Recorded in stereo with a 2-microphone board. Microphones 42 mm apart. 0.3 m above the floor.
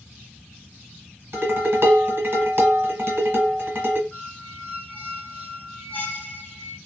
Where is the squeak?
30° left (ahead or behind), 0.8 m.